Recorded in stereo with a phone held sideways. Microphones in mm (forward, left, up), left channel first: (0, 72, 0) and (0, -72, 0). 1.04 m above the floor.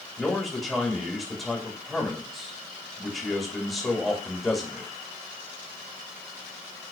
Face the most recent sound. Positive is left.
turn(degrees=5)  # may be behind; listen again after turning